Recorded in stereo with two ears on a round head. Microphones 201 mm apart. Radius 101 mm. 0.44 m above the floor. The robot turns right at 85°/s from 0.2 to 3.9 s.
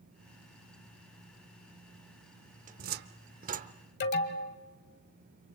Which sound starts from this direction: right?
A cupboard door, at 2.7 s.